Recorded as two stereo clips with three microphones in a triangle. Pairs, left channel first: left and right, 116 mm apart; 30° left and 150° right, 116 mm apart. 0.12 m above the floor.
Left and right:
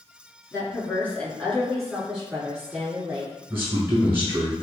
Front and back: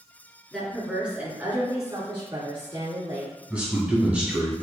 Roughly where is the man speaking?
Right.